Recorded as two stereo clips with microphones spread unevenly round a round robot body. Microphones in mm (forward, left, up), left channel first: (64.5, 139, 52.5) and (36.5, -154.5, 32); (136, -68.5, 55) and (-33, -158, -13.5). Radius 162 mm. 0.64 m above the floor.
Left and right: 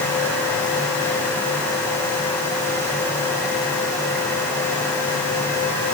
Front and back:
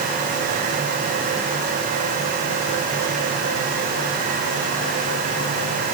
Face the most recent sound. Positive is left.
No sound to turn to.